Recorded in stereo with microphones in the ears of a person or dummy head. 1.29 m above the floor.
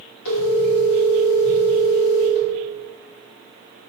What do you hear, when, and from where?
0.2 s a phone ringing: 70° left (ahead or behind), 1.7 m